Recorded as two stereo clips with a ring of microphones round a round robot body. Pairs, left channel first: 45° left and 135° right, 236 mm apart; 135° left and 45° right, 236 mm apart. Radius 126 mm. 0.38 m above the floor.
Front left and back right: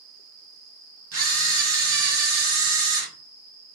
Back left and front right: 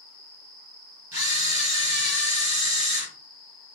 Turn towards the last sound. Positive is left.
turn(degrees=-125)